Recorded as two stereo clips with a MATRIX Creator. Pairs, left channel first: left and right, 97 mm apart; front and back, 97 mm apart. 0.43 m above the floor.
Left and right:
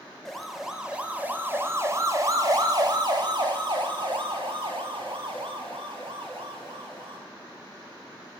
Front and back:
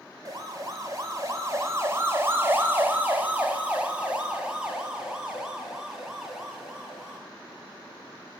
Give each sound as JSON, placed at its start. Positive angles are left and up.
{"t": 0.2, "sound": "a siren", "azimuth_deg": 175, "distance_m": 2.5}